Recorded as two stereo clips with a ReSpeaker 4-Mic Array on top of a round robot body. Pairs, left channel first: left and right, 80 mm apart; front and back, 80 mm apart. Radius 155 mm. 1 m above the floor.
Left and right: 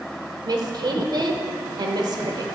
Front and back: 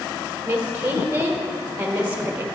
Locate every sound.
0.5 s a woman speaking: 110° right, 1.1 m